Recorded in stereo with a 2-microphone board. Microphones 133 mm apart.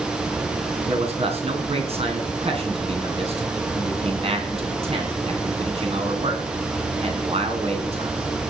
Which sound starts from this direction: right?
A man speaking, at 0.9 s.